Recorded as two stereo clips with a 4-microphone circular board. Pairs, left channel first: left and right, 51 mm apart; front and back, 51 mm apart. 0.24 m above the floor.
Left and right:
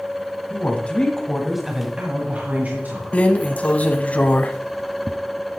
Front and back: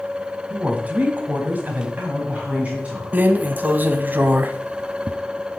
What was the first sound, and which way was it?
A woman speaking, 125° left.